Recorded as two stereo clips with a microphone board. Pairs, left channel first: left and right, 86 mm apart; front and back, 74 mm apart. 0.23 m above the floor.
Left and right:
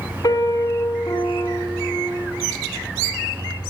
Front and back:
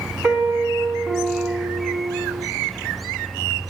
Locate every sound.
0.2 s a piano: 120° left, 1.8 m